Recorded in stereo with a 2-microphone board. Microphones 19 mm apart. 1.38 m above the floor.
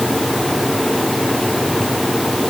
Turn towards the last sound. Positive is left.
No sound to turn to.